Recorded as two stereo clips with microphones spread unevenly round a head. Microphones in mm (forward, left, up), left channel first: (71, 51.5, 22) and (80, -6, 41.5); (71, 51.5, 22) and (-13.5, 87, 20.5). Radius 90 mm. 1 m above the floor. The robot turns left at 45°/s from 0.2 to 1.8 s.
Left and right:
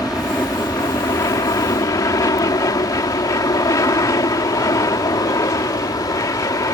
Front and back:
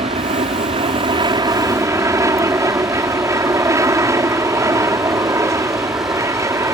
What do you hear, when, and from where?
0.0 s an aircraft: 175° left; by 6.8 s 105° left